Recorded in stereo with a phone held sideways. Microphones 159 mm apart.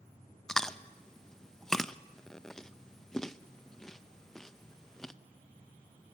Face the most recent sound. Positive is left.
turn(degrees=5)  # may be behind; listen again after turning